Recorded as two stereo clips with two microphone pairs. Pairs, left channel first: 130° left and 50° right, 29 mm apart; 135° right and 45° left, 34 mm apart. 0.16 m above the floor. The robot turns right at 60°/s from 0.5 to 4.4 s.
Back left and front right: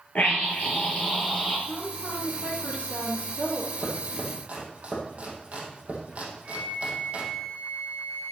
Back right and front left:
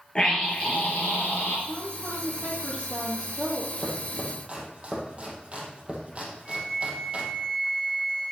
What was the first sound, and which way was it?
A scream, 160° left.